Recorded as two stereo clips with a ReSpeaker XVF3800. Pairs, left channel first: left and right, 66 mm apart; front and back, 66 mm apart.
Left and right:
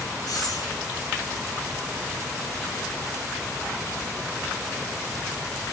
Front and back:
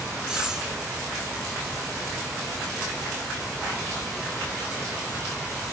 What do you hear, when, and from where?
0.3 s breathing: 95° left, 7 m